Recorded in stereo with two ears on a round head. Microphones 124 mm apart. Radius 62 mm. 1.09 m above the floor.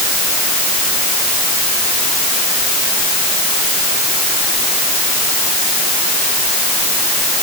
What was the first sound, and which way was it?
Only background noise.